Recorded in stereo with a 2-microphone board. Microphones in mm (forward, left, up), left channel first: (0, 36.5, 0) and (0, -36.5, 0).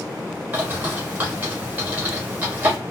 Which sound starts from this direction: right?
A bird, at 0.5 s.